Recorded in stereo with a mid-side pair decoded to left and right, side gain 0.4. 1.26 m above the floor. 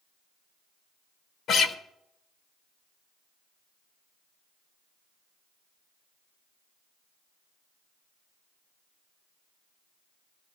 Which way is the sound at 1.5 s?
70° left.